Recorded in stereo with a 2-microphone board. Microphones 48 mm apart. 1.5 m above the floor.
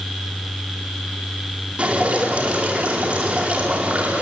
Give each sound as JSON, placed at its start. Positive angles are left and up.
{"t": 1.8, "sound": "dripping", "side_deg": -25, "distance_m": 4.5}